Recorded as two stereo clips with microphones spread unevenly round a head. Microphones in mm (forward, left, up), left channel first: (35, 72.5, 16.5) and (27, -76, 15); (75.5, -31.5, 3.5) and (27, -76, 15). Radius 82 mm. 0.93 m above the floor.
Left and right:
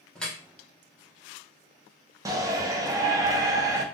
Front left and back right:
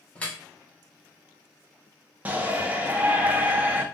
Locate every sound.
0.1 s dripping: 5° left, 1.0 m
2.2 s a shout: 90° right, 0.7 m